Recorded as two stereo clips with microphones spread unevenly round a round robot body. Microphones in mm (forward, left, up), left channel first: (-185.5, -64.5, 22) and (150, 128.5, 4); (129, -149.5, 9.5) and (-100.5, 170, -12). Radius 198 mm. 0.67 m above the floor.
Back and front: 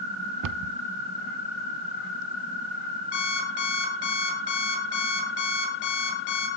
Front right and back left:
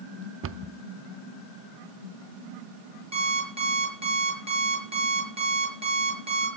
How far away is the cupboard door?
About 0.5 m.